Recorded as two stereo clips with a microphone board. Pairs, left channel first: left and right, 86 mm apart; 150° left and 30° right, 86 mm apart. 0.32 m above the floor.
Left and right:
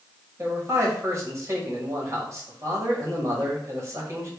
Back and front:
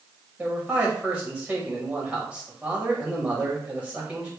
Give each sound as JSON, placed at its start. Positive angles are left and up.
{"t": 0.4, "sound": "a man speaking", "azimuth_deg": -95, "distance_m": 1.2}